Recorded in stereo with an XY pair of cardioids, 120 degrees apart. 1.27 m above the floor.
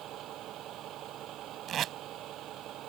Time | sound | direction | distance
0.0 | a vehicle | 70° right | ?
1.7 | tape being pulled | 60° right | ?